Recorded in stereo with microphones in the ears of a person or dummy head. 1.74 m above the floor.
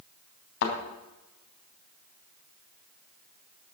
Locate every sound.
0.6 s a thud: 60° left (ahead or behind), 3.5 m